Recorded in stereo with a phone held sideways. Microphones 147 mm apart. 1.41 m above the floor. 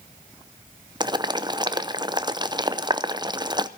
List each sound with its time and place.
1.0 s boiling: 30° right (ahead or behind), 0.7 m